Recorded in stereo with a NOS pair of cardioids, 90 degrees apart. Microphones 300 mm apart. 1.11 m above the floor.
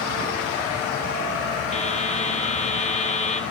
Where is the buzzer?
20° left, 1.0 m.